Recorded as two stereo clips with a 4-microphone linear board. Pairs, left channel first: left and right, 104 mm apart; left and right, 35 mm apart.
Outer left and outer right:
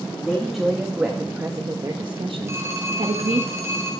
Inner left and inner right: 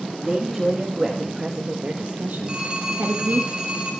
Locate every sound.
0.2 s a woman speaking: centre (ahead or behind), 1.9 m; by 3.5 s 80° right, 1.6 m
2.5 s a phone ringing: 30° right (ahead or behind), 5 m